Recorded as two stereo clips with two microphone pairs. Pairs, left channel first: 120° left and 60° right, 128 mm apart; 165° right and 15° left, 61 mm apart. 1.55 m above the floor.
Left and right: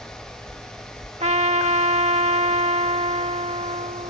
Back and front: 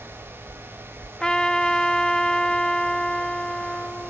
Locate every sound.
1.2 s a trumpet: 85° right